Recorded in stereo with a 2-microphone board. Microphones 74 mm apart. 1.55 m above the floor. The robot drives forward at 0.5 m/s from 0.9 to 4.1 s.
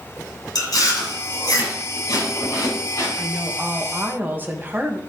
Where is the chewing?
60° left (ahead or behind), 3.5 m; by 3.1 s 45° left (ahead or behind), 4 m.